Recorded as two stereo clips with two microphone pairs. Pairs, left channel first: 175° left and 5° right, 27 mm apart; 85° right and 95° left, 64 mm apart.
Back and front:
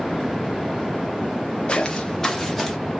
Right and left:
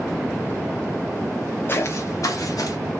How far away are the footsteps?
About 0.7 m.